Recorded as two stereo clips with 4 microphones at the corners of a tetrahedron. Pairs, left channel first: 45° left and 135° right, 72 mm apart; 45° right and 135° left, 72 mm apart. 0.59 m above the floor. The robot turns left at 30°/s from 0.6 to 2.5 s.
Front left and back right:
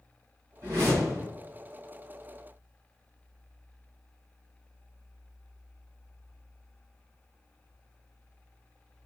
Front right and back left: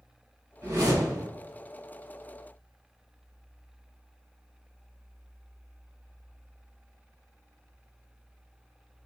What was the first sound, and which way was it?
A whoosh, straight behind.